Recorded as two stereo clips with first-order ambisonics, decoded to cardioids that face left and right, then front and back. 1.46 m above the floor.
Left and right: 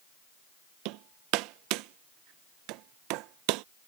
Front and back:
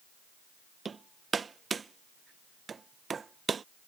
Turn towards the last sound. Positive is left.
turn(degrees=-110)